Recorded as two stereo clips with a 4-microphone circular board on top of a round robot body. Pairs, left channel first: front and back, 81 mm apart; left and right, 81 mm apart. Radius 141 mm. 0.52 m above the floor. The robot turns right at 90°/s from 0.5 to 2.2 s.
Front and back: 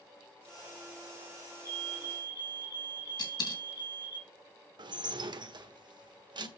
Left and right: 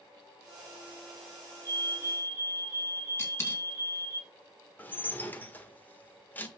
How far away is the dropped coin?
About 3 m.